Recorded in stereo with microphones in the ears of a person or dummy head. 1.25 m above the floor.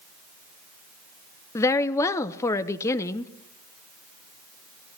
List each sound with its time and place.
1.6 s a woman speaking: 20° left (ahead or behind), 0.8 m